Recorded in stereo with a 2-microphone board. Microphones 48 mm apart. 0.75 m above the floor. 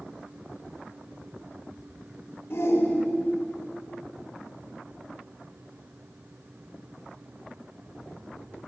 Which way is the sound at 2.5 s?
65° left (ahead or behind).